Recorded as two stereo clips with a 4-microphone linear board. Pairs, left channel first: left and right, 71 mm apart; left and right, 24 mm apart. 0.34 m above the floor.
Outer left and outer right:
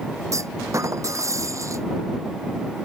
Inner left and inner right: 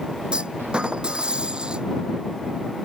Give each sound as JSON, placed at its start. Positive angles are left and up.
{"t": 0.3, "sound": "a clunk", "side_deg": -45}